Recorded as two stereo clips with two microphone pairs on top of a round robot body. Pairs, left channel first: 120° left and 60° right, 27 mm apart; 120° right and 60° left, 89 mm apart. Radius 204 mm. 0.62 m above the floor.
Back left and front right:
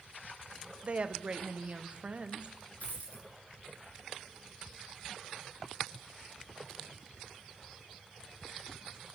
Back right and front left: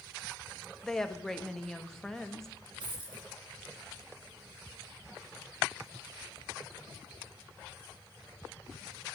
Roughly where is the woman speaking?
Ahead right.